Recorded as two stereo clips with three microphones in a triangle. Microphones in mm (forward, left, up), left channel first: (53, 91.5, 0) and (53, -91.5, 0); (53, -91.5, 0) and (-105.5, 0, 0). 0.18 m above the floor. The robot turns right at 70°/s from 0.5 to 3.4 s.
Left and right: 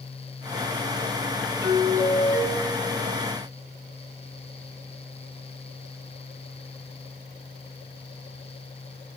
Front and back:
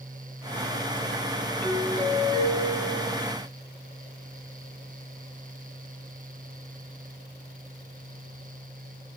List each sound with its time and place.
1.6 s a doorbell: 95° right, 2 m; by 3.2 s 20° left, 2 m